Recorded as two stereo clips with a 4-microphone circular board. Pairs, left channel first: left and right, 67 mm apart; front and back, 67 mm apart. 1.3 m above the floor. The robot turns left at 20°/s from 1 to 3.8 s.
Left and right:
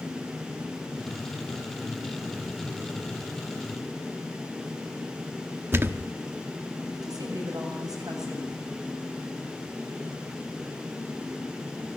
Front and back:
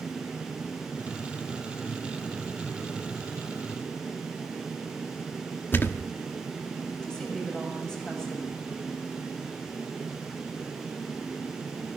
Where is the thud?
50° right, 1.1 m.